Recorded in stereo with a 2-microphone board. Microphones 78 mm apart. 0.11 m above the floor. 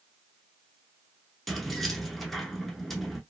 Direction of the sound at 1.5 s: Centre (ahead or behind).